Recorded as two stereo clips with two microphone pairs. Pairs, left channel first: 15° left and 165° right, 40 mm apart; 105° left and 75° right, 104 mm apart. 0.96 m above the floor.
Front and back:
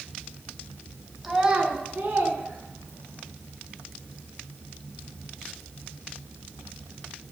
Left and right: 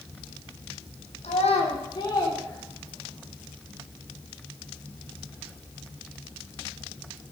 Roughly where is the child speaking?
Left.